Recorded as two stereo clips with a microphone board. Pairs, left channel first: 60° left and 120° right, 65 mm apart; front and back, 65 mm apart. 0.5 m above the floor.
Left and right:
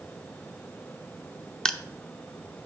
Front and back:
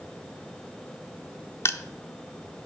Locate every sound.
1.6 s crushing: 15° right, 0.6 m